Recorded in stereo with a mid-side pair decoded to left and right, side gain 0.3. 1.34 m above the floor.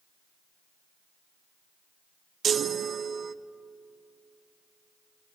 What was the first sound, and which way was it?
A chime, 70° right.